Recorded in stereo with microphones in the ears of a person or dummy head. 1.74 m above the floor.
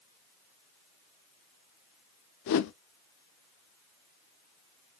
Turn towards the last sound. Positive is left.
turn(degrees=60)  # may be behind; listen again after turning